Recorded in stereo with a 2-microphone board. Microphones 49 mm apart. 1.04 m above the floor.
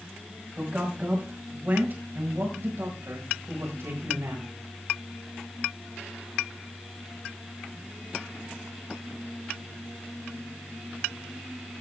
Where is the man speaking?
25° right (ahead or behind), 5 m; by 4.5 s 80° right, 5 m.